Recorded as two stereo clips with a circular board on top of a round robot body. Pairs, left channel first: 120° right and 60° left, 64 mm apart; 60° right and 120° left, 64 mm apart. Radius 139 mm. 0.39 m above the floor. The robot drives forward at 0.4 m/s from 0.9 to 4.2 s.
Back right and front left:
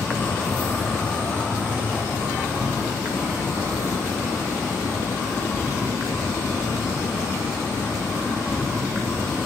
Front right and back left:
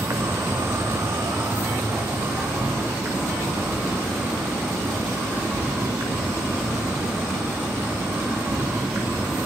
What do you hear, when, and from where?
0.0 s an insect: 165° left, 0.9 m; by 9.5 s 175° left, 2 m